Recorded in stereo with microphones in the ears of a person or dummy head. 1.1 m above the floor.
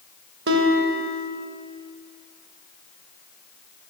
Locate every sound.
0.5 s a guitar: 75° right (ahead or behind), 2.5 m